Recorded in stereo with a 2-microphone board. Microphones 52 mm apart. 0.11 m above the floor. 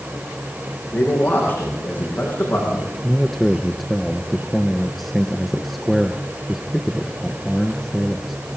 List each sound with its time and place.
0.9 s a man speaking: 35° left (ahead or behind), 8 m
3.0 s a man speaking: centre (ahead or behind), 1.5 m